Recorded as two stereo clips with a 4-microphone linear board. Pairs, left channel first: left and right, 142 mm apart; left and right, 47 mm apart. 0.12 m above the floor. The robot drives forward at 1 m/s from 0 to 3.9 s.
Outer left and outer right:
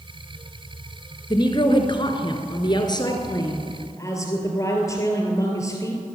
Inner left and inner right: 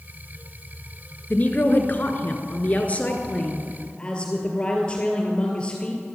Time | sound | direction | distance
1.3 | a woman speaking | 30° left (ahead or behind) | 1.7 m